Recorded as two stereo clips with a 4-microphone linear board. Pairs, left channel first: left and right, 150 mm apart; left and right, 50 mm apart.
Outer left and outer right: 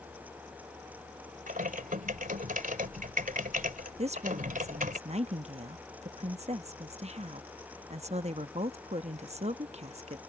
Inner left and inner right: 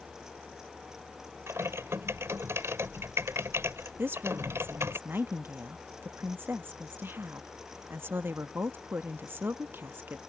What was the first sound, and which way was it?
Typing on a keyboard, 65° right (ahead or behind).